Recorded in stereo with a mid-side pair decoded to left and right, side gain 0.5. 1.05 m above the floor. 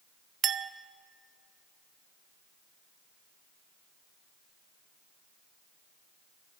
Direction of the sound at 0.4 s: 55° right.